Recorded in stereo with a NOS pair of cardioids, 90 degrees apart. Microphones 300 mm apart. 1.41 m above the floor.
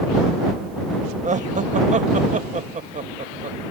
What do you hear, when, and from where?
1.2 s laughter: 25° right